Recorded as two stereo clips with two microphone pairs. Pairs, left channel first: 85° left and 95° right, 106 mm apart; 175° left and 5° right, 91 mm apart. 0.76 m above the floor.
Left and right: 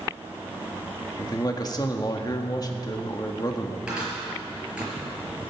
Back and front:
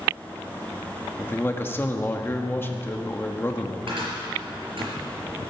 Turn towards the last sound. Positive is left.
turn(degrees=-15)